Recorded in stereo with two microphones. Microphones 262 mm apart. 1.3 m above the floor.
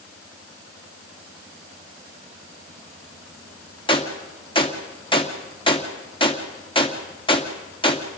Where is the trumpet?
No trumpet in this recording.